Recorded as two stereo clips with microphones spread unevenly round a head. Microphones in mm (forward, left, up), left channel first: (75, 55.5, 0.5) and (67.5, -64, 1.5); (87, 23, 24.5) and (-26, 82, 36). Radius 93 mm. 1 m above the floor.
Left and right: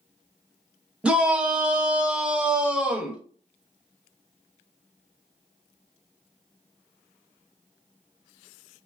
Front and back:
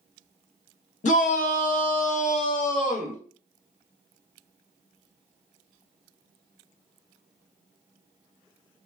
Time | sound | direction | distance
1.0 | a shout | 15° right | 0.9 m